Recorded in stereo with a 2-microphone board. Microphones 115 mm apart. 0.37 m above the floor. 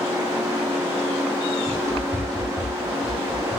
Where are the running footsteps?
30° right (ahead or behind), 0.8 m; by 3.6 s 25° right (ahead or behind), 1.7 m.